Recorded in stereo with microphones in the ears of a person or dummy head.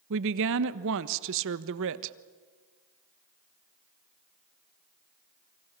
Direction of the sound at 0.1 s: 70° right (ahead or behind).